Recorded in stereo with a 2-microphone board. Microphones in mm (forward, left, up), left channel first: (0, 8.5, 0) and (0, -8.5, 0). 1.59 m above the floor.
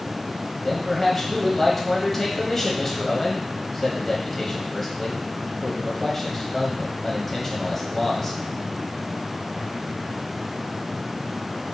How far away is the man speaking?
About 1.2 m.